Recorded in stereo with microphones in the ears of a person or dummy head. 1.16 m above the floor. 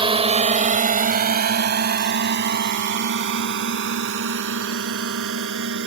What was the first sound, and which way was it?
A drone, 25° right (ahead or behind).